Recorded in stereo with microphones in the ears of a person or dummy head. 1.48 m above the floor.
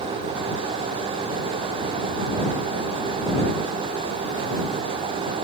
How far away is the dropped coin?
No dropped coin in this recording.